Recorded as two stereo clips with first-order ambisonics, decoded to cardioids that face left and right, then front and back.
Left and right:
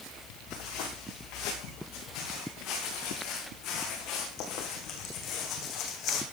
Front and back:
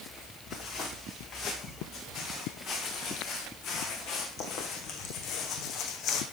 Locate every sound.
0.5 s footsteps: 60° left, 8.5 m; by 6.2 s 45° left, 3.5 m